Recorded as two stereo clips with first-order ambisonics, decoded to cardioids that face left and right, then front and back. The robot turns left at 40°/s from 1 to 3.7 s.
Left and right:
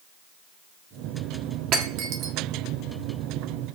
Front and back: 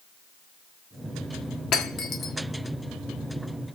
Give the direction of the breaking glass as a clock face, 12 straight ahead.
1 o'clock.